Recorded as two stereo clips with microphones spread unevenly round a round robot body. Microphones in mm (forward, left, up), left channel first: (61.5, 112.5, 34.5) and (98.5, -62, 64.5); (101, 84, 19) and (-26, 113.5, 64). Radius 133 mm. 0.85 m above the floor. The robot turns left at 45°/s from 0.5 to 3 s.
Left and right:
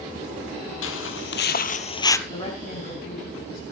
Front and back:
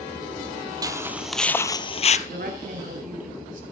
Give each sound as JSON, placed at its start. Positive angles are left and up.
{"t": 0.8, "sound": "footsteps", "azimuth_deg": 125, "distance_m": 1.5}
{"t": 2.3, "sound": "a woman speaking", "azimuth_deg": 180, "distance_m": 6.5}